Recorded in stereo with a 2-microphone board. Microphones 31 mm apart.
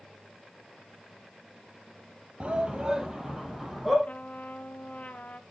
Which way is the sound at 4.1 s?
55° left (ahead or behind).